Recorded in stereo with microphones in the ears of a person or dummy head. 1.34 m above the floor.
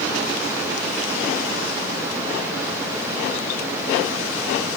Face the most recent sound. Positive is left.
No sound to turn to.